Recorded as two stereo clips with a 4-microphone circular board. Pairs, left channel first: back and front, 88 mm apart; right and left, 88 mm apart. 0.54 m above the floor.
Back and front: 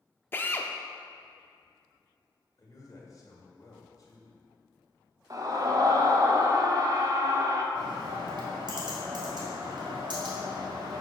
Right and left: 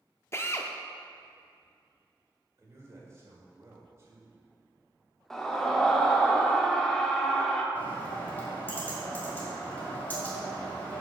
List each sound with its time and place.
0.3 s a drill: 130° right, 0.5 m
2.6 s a man speaking: 140° left, 1.9 m
5.3 s a scream: 10° right, 0.9 m
7.8 s a bird: 20° right, 1.9 m